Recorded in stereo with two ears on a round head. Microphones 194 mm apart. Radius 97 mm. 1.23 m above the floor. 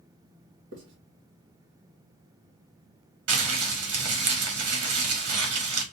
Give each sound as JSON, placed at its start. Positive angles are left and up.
{"t": 0.7, "sound": "writing", "side_deg": -60, "distance_m": 2.0}
{"t": 3.3, "sound": "crumpling", "side_deg": -80, "distance_m": 1.6}